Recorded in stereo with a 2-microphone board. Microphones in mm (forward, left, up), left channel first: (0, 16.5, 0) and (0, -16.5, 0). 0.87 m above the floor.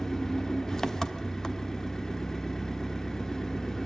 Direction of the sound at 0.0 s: 15° left (ahead or behind).